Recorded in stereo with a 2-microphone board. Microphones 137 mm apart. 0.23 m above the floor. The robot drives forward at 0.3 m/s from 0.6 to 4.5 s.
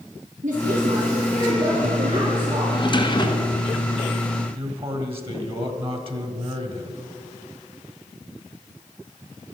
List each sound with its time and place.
0.4 s a woman speaking: 65° right (ahead or behind), 3.5 m; by 2.6 s 60° right (ahead or behind), 4 m
2.7 s a drawer: 35° left (ahead or behind), 1.4 m; by 3.6 s 30° left (ahead or behind), 1.6 m
4.5 s a man speaking: 45° right (ahead or behind), 1.8 m